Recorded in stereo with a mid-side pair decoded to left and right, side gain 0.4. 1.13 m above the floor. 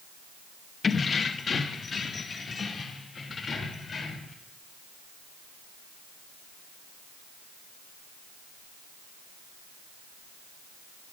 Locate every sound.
0.8 s keys jangling: 45° left, 0.8 m; by 4.3 s 50° left, 3.5 m